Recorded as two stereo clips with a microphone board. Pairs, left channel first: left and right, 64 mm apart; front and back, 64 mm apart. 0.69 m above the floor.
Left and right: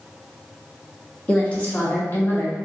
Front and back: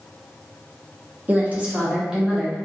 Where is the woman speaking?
150° left, 1.1 m; by 2.6 s 90° left, 1.1 m.